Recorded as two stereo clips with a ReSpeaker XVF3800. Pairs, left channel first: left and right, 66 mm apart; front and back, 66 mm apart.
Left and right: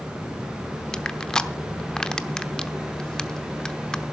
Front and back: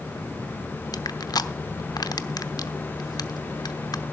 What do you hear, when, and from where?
0.9 s crushing: 10° left, 0.8 m